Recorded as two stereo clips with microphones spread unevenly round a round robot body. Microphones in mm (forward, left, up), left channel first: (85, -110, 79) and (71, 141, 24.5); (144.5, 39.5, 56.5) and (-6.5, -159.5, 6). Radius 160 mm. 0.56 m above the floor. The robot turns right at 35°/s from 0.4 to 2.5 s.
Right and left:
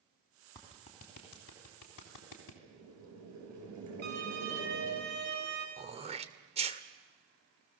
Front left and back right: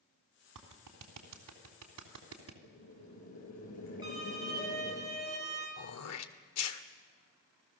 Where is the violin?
155° left, 3 m.